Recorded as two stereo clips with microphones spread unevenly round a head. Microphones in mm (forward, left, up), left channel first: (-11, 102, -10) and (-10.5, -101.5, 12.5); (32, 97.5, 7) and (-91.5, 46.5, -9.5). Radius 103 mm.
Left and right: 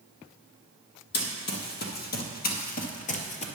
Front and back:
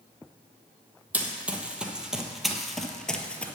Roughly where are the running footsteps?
Behind left.